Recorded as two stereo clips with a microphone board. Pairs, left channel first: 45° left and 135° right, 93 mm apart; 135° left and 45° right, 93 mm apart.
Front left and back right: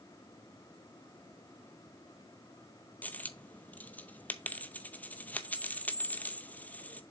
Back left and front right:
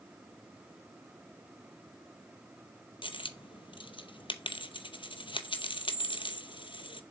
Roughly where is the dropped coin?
Behind left.